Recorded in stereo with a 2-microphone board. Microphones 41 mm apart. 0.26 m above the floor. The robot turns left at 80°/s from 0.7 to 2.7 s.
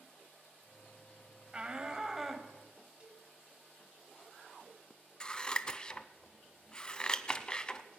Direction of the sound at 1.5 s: 25° right (ahead or behind).